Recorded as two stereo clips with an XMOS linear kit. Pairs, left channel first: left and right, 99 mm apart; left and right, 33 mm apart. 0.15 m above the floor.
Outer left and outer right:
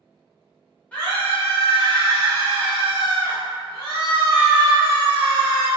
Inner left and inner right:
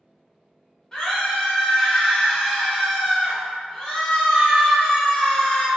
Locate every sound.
0.9 s a scream: 15° left (ahead or behind), 1.3 m